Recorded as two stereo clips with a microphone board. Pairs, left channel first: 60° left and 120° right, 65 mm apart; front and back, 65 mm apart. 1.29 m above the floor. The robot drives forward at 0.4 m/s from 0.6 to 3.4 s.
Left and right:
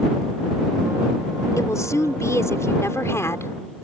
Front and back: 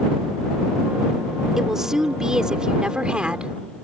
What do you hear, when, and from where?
1.6 s a woman speaking: 95° left; by 3.8 s 105° left